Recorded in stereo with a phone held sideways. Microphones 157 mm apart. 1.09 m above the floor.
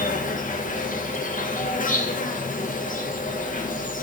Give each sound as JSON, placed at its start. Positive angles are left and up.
{"t": 0.0, "sound": "an insect", "side_deg": 60, "distance_m": 0.9}